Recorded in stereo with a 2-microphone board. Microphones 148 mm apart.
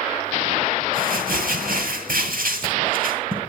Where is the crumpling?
75° right (ahead or behind), 8.5 m.